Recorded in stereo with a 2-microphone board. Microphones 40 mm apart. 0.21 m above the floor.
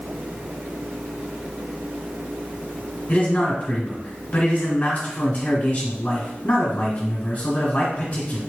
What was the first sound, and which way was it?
A man speaking, 40° left (ahead or behind).